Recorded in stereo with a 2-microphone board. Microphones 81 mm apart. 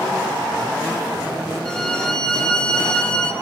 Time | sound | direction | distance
1.6 | a violin | 10° left (ahead or behind) | 1.0 m